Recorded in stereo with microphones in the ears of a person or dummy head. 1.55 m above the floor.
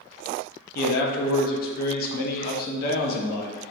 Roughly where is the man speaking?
Left.